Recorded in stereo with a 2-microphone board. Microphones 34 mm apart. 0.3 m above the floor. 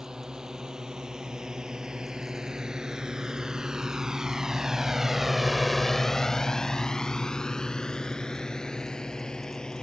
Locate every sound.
0.0 s a drone: 25° right (ahead or behind); by 9.8 s 25° left (ahead or behind)